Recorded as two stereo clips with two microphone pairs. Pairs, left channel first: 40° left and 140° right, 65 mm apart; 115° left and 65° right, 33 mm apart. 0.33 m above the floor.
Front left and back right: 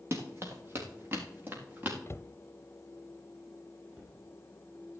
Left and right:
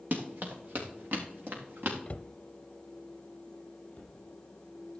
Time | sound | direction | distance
0.1 | running footsteps | 90° right | 3.5 m
2.1 | a cupboard door | 75° left | 0.5 m
3.9 | a cupboard door | 170° left | 5.5 m